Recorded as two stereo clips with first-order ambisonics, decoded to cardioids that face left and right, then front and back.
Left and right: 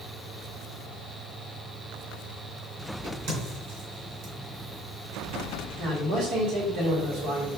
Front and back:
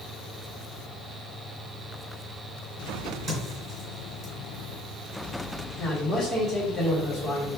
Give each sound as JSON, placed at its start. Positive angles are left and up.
{"t": 3.0, "sound": "a crack", "azimuth_deg": -110, "distance_m": 2.5}
{"t": 5.8, "sound": "a man speaking", "azimuth_deg": -70, "distance_m": 1.7}